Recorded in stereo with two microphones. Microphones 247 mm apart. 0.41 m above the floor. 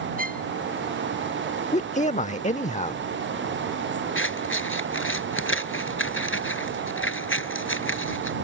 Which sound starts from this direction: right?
A violin, at 0.2 s.